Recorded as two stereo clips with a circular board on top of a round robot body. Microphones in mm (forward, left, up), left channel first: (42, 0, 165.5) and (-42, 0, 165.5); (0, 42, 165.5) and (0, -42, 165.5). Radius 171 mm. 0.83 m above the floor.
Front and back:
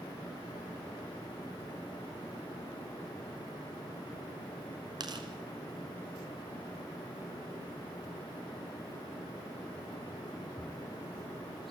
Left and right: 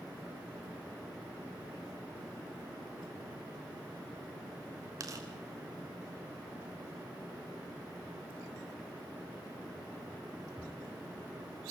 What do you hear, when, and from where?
5.0 s tearing paper: 140° right, 2.0 m